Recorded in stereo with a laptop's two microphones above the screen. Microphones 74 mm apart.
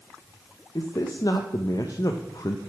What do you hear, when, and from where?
0.8 s a man speaking: 55° left (ahead or behind), 0.5 m